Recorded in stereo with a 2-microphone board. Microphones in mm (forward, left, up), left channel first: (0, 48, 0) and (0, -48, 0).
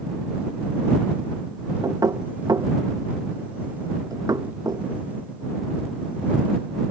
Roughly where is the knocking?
Right.